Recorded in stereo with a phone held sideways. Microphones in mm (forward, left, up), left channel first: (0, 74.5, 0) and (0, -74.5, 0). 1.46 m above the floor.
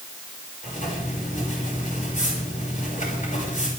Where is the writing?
60° left (ahead or behind), 7 m.